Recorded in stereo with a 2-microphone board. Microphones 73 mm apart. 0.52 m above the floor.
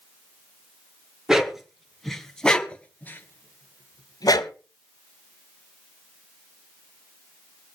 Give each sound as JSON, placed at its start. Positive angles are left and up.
{"t": 1.3, "sound": "a dog barking", "side_deg": -5, "distance_m": 2.5}